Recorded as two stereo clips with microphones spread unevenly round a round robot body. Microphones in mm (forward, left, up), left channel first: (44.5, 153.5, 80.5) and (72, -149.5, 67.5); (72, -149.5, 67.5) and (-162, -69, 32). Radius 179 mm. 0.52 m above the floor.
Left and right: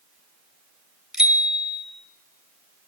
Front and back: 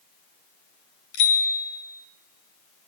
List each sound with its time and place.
1.1 s a bicycle bell: 5° left, 2 m